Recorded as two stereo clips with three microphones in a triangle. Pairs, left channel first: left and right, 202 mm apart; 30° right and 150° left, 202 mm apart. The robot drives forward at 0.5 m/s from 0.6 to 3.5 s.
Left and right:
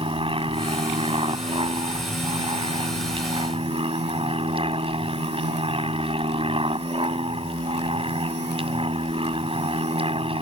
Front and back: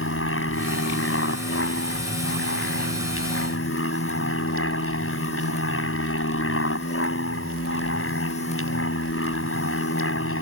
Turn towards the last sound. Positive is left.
turn(degrees=-25)